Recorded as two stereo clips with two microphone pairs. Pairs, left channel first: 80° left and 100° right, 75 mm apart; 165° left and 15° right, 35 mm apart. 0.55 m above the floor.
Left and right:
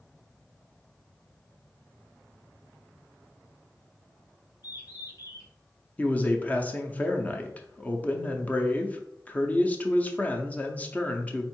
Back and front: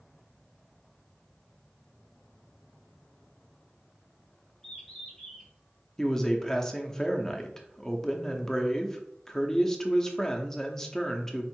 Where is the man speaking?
100° left, 0.6 m.